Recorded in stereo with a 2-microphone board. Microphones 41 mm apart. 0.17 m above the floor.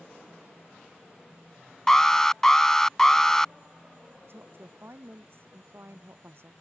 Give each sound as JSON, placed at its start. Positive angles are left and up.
{"t": 1.9, "sound": "an alarm", "side_deg": 10}
{"t": 4.3, "sound": "a woman speaking", "side_deg": -65}